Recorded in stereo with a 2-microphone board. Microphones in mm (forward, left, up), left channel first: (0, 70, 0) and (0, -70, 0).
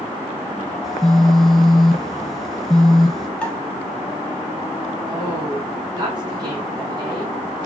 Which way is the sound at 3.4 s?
10° left (ahead or behind).